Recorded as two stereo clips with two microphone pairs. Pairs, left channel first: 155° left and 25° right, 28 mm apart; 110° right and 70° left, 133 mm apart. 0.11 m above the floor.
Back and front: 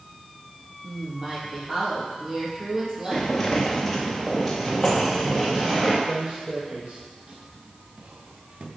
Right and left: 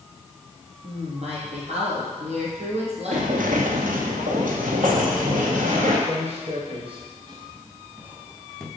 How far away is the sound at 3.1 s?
About 1.5 m.